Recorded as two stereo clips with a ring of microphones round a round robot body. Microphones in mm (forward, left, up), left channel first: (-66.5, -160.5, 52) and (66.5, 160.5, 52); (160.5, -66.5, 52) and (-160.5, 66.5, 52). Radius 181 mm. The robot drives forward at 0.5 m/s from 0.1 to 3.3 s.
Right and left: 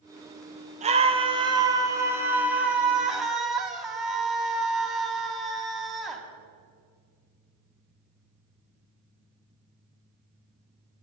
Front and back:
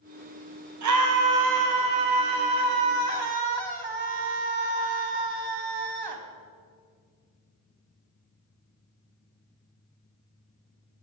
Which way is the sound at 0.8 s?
135° left.